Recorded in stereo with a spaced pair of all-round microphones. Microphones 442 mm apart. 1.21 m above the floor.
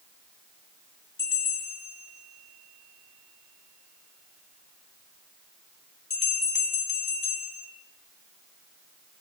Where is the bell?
50° left (ahead or behind), 2.5 m.